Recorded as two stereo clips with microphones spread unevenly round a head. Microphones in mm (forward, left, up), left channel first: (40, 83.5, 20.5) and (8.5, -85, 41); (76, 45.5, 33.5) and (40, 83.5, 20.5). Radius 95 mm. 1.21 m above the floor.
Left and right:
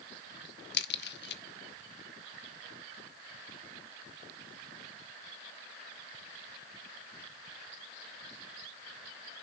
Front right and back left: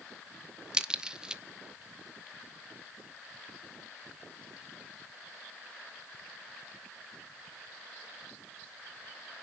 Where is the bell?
I don't hear a bell.